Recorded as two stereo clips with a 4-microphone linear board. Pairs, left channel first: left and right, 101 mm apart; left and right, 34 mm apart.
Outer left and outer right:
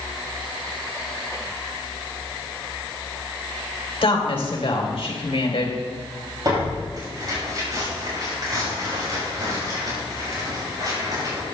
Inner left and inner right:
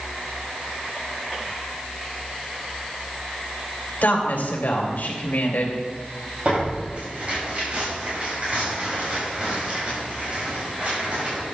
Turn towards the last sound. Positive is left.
turn(degrees=-40)  # may be behind; listen again after turning